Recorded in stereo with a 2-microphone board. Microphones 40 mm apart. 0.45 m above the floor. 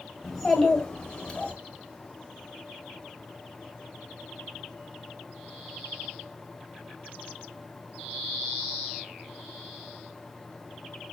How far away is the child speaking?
About 1.7 m.